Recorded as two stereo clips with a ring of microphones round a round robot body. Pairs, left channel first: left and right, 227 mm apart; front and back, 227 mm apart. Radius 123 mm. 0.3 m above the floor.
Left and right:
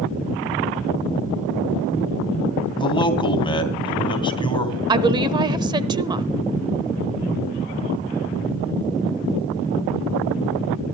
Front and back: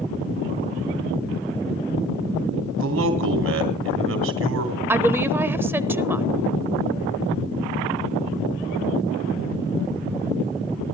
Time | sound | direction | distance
2.8 | a man speaking | 155° left | 3 m
4.9 | a woman speaking | 115° right | 0.9 m